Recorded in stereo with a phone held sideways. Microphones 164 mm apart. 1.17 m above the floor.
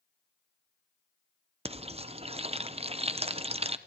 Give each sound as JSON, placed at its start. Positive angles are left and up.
{"t": 1.6, "sound": "frying", "side_deg": -35, "distance_m": 0.8}